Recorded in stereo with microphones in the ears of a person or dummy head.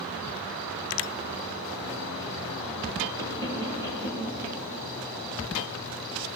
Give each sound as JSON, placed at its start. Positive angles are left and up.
{"t": 3.2, "sound": "knocking", "side_deg": 15, "distance_m": 5.5}